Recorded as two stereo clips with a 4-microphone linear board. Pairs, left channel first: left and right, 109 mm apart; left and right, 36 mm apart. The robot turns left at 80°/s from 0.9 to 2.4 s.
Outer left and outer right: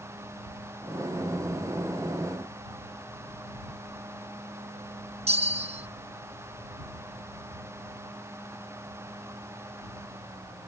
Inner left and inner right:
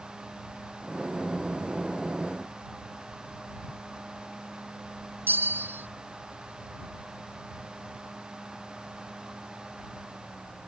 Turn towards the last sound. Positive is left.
turn(degrees=-80)